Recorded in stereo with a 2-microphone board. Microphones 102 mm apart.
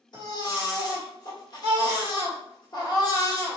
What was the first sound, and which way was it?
A baby crying, 45° left (ahead or behind).